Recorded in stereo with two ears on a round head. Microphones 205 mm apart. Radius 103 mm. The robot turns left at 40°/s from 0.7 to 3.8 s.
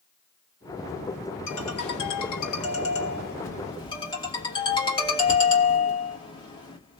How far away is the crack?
No crack in this recording.